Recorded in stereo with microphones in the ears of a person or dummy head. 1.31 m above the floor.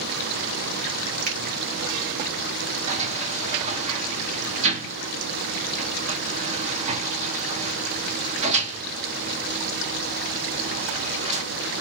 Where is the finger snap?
45° right (ahead or behind), 1.3 m.